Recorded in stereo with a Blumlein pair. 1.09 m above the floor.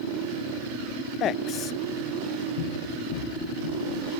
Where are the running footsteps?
55° left, 5.5 m.